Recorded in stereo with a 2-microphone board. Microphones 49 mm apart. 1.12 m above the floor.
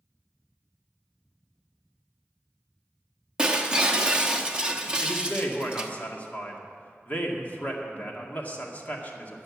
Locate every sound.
3.4 s breaking glass: 20° right (ahead or behind), 0.9 m
5.0 s a man speaking: 35° left (ahead or behind), 2 m